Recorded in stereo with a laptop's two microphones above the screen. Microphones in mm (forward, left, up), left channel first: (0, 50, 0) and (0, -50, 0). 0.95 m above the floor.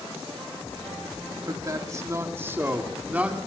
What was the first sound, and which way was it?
A man speaking, 35° right (ahead or behind).